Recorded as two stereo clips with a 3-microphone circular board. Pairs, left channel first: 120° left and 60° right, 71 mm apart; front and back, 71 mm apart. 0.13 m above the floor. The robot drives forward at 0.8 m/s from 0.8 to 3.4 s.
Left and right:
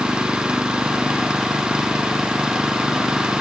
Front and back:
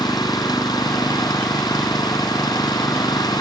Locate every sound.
0.0 s an engine running: 15° left; by 3.4 s 20° left